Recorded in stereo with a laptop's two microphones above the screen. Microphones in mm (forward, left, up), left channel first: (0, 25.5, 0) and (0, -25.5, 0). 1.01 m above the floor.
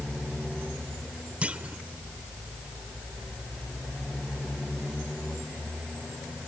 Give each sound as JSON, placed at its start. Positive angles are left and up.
{"t": 1.4, "sound": "a clunk", "side_deg": -30}